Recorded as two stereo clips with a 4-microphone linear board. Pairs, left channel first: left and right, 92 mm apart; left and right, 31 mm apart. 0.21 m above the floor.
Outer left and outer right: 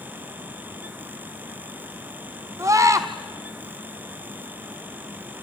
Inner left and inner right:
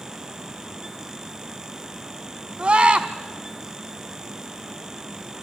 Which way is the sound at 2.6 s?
40° right (ahead or behind).